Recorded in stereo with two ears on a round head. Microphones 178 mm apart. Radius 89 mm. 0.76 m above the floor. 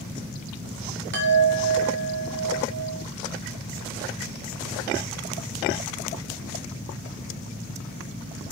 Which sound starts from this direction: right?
A chime, at 1.1 s.